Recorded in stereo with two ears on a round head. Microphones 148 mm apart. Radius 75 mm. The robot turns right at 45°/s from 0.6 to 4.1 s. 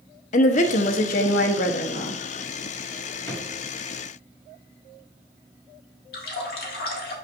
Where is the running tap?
60° left (ahead or behind), 1.8 m.